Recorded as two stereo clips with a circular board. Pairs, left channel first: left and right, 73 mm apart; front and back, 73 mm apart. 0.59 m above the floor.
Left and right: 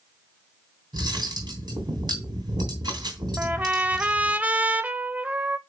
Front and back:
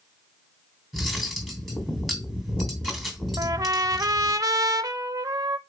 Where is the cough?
I don't hear a cough.